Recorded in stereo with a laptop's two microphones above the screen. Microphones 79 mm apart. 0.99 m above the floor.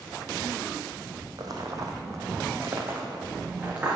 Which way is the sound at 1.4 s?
50° right (ahead or behind).